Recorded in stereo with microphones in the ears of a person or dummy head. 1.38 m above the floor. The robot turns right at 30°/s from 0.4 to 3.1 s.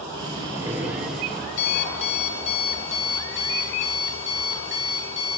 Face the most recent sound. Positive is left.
turn(degrees=110)